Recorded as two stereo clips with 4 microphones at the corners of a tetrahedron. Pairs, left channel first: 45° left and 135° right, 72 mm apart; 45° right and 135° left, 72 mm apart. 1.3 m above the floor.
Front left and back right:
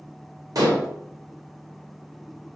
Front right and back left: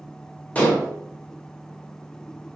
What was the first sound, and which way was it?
Dishes clattering, 115° right.